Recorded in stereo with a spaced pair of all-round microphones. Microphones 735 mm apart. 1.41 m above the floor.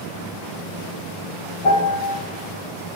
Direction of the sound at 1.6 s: 50° left (ahead or behind).